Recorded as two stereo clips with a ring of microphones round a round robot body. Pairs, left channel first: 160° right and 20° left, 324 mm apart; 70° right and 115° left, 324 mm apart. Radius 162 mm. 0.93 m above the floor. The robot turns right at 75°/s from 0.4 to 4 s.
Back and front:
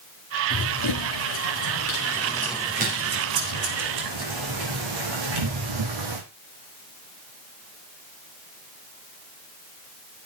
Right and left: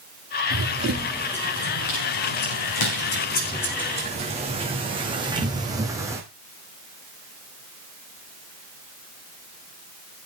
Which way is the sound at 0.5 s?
150° left.